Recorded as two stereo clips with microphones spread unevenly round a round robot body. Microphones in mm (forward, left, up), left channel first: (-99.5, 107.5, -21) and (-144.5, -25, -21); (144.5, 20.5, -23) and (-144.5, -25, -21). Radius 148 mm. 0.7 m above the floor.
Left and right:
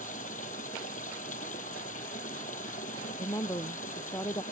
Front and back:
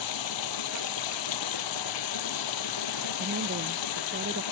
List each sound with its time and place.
0.0 s running water: 15° left
3.2 s a woman speaking: 135° left